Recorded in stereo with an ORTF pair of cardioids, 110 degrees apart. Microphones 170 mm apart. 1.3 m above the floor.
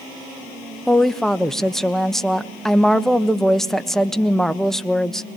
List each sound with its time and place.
0.9 s a woman speaking: straight ahead, 1.2 m